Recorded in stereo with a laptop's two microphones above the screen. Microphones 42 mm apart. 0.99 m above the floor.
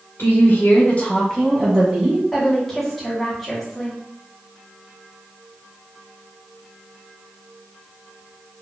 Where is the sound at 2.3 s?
5° left (ahead or behind), 1.2 m.